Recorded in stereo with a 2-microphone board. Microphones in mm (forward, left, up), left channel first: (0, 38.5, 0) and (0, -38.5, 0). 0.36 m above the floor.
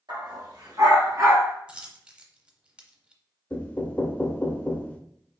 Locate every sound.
0.1 s a dog barking: 75° right (ahead or behind), 2.5 m; by 1.5 s 35° right (ahead or behind), 1.8 m
1.7 s a dropped coin: 15° right (ahead or behind), 0.7 m
3.5 s knocking: 20° left (ahead or behind), 0.6 m